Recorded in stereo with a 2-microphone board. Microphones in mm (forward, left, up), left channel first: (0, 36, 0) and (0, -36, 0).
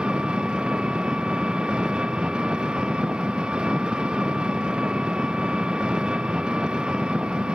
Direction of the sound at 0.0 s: 15° right (ahead or behind).